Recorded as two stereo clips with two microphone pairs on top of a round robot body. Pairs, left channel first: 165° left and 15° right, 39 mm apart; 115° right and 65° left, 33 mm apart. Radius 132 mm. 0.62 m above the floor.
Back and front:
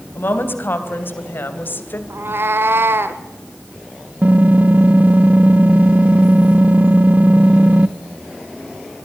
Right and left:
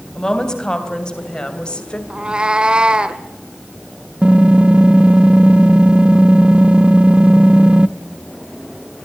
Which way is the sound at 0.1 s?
175° left.